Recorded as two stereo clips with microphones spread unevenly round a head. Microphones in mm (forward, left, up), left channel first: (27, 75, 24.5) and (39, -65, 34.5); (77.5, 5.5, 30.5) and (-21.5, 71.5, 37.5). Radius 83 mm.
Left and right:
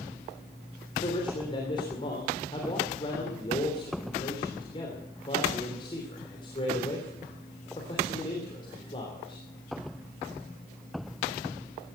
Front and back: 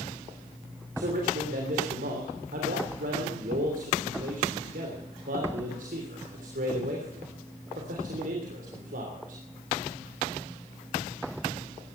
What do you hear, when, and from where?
1.0 s a man speaking: 160° left, 3 m